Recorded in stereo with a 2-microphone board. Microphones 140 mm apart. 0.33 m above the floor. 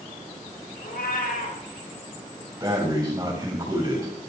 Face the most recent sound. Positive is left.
turn(degrees=-25)  # may be behind; listen again after turning